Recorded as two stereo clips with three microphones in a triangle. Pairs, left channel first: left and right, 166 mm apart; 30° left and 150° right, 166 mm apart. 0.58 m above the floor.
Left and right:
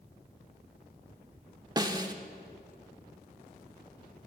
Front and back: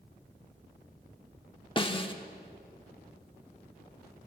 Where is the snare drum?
30° right, 0.8 m.